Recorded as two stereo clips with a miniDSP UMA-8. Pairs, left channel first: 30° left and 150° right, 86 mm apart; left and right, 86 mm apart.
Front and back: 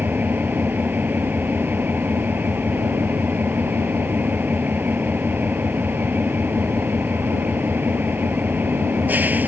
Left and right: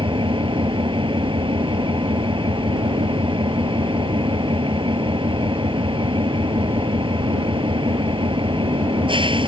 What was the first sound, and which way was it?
An engine running, 80° right.